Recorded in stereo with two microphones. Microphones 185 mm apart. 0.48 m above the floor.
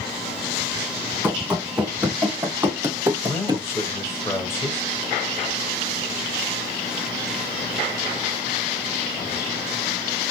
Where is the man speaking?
15° left (ahead or behind), 1.8 m.